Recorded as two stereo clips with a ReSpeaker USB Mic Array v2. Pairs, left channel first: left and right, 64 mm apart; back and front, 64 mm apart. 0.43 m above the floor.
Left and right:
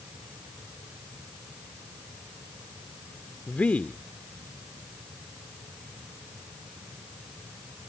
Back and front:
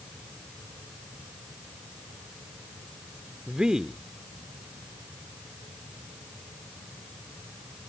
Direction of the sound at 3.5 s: 60° left.